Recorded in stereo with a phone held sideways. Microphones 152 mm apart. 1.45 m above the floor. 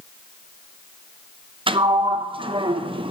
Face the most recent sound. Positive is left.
turn(degrees=-35)  # may be behind; listen again after turning